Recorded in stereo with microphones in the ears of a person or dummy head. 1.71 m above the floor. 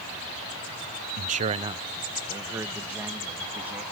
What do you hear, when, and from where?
1.2 s a man speaking: 50° right (ahead or behind); by 3.8 s 10° right (ahead or behind)